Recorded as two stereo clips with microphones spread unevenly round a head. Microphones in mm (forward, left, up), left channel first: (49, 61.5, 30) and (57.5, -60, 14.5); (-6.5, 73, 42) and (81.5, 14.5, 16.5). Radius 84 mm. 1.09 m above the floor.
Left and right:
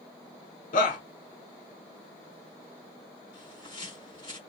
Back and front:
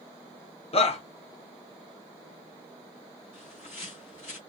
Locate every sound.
0.7 s a shout: 110° left, 1.1 m
3.3 s a bird: 165° left, 1.5 m